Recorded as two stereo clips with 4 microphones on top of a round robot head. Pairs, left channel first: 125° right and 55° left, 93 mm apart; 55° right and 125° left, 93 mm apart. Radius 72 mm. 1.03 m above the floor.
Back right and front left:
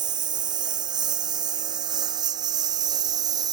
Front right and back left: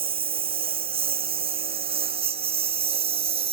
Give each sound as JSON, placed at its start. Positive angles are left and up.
{"t": 0.0, "sound": "a lawn mower", "azimuth_deg": 100}